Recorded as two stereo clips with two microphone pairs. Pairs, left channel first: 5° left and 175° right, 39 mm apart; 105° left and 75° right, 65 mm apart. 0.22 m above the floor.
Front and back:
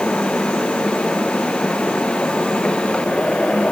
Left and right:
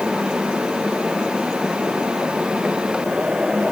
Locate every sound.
Only background noise.